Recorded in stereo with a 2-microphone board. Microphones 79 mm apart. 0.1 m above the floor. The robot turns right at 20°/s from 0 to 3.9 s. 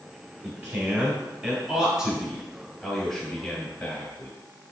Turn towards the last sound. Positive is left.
turn(degrees=10)  # may be behind; listen again after turning